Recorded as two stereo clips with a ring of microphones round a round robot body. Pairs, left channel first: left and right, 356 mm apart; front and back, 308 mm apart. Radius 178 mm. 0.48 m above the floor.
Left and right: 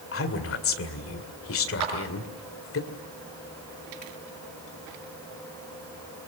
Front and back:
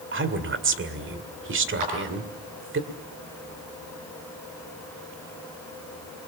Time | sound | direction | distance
0.1 | a woman speaking | 135° left | 2 m
1.8 | a clap | 135° right | 6 m